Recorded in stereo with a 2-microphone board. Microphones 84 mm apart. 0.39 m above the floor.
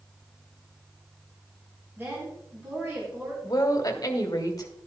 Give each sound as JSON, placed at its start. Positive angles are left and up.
{"t": 2.0, "sound": "a woman speaking", "side_deg": -25, "distance_m": 3.5}
{"t": 3.4, "sound": "a woman speaking", "side_deg": 45, "distance_m": 1.6}